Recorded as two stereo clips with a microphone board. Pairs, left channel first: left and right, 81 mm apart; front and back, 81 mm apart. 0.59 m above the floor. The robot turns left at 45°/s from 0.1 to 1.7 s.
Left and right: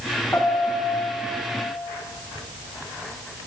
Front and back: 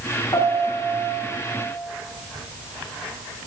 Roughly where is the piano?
Ahead left.